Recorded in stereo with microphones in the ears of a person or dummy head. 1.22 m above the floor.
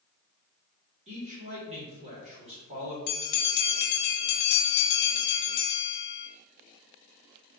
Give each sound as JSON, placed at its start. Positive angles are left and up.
{"t": 1.1, "sound": "a man speaking", "side_deg": -35, "distance_m": 1.3}
{"t": 3.1, "sound": "a bell", "side_deg": 55, "distance_m": 0.6}